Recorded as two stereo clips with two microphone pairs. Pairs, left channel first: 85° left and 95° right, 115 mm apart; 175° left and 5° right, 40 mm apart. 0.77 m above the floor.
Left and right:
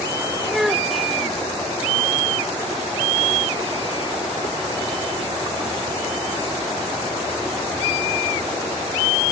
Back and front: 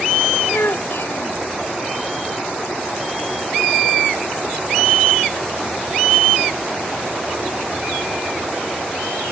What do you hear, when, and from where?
0.5 s a child speaking: 175° left